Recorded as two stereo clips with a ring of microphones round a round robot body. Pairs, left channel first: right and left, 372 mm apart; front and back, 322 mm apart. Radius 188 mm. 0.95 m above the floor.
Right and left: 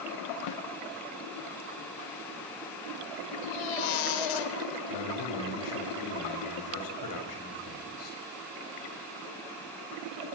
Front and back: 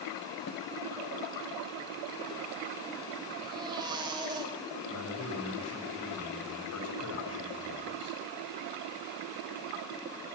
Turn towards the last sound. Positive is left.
turn(degrees=-50)